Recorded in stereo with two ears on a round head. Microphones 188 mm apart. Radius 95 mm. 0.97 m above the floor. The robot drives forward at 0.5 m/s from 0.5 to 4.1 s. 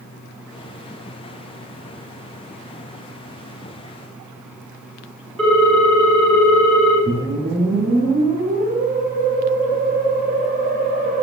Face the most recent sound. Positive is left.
turn(degrees=-40)  # may be behind; listen again after turning